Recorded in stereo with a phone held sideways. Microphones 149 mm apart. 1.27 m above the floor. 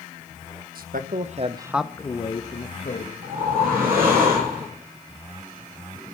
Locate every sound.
0.8 s a man speaking: 75° right (ahead or behind), 1.3 m; by 3.1 s 60° left (ahead or behind), 1.7 m
3.2 s a whoosh: 85° right, 8.5 m